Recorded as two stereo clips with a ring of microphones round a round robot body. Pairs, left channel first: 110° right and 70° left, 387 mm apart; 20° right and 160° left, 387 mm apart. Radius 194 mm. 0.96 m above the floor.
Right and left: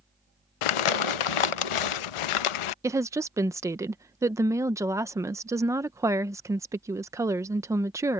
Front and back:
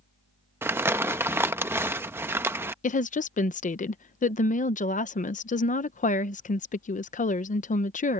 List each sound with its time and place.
0.6 s crumpling: 120° right
2.8 s a woman speaking: straight ahead